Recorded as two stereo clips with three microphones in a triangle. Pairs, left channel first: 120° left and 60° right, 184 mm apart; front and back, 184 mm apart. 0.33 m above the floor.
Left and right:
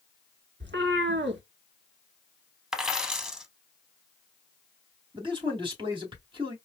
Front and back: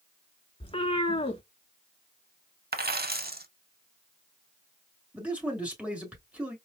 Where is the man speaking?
100° right, 1.7 m.